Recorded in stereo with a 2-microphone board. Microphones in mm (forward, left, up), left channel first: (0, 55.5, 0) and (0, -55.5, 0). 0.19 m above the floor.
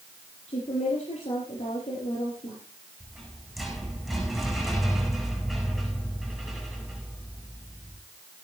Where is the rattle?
Centre (ahead or behind), 8.5 m.